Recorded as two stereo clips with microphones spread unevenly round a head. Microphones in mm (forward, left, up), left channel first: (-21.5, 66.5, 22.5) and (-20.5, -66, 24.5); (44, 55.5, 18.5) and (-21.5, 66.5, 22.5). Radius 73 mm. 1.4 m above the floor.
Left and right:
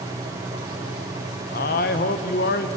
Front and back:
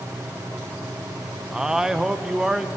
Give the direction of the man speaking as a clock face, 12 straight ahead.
9 o'clock.